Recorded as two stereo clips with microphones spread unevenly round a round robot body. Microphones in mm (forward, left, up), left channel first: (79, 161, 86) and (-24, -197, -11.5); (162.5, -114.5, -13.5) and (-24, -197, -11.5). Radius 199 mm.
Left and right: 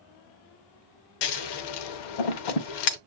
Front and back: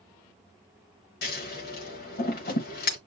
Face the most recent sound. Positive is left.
turn(degrees=55)